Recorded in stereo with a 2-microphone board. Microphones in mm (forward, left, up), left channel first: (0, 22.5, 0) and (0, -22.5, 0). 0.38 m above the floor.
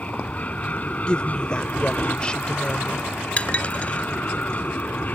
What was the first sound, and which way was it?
An aircraft, 30° left (ahead or behind).